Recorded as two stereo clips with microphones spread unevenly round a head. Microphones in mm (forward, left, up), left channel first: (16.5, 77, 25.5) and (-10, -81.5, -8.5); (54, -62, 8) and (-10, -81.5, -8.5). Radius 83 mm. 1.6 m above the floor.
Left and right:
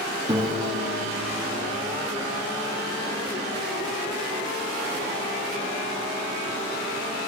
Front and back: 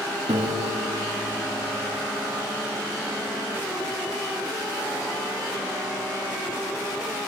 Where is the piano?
175° right, 1.8 m.